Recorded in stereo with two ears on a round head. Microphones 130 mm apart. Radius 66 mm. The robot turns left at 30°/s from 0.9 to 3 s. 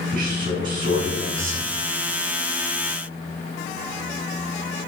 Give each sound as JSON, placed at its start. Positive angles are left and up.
{"t": 0.1, "sound": "a man speaking", "side_deg": -65, "distance_m": 4.0}